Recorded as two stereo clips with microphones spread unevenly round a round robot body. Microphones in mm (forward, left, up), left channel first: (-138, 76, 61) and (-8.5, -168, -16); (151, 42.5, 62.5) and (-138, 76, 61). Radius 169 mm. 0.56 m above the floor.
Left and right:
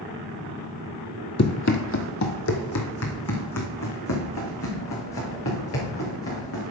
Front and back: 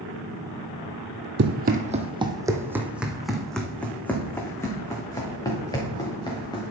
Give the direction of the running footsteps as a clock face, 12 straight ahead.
8 o'clock.